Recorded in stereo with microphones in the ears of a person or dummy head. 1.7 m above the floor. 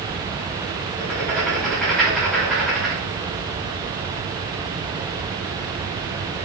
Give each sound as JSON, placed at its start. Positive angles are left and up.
{"t": 1.0, "sound": "writing", "side_deg": 5, "distance_m": 1.1}